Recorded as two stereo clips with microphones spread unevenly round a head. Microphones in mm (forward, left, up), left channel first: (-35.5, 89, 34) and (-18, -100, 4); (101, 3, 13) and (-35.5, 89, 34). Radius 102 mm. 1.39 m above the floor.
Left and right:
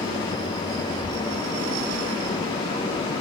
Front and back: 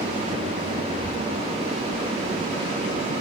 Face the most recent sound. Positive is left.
turn(degrees=-165)